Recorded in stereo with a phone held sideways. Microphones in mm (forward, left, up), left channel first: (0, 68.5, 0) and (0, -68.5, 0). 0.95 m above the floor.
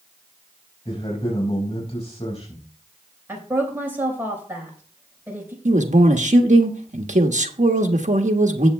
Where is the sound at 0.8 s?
50° left (ahead or behind), 4.5 m.